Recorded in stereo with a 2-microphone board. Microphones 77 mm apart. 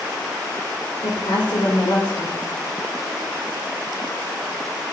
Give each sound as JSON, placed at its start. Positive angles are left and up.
{"t": 1.0, "sound": "a woman speaking", "side_deg": 85, "distance_m": 5.0}